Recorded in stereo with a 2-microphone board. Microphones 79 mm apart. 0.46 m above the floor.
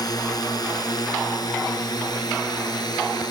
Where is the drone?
55° left (ahead or behind); by 3.3 s 60° left (ahead or behind).